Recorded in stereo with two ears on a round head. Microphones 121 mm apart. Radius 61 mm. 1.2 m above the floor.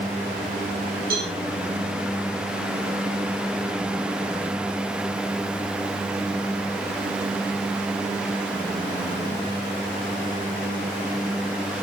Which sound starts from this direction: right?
A cowbell, at 1.1 s.